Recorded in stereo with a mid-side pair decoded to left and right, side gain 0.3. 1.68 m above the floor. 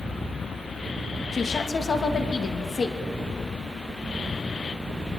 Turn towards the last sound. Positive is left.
turn(degrees=55)